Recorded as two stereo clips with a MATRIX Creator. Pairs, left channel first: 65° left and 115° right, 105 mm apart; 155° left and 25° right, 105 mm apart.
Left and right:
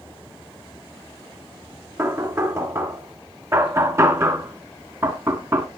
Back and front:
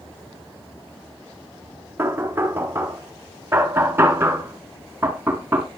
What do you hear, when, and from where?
2.0 s knocking: 75° right, 1.2 m